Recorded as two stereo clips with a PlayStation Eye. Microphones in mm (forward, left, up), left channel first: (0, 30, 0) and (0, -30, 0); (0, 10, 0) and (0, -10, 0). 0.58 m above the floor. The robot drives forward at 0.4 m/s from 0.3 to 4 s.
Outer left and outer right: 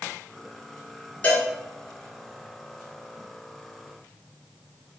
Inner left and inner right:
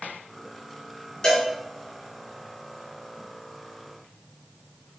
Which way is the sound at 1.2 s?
30° left (ahead or behind).